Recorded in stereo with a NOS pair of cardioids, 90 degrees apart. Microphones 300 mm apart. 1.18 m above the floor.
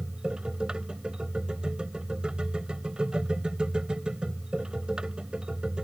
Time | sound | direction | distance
0.0 | a machine running | 5° right | ?